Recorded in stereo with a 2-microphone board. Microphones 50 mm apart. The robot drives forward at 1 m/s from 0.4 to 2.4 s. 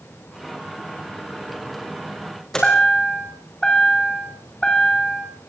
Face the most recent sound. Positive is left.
turn(degrees=10)  # may be behind; listen again after turning